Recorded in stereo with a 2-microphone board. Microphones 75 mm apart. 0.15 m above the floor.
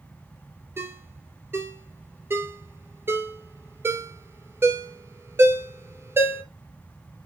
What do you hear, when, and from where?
0.8 s a ringtone: 30° right (ahead or behind), 2.0 m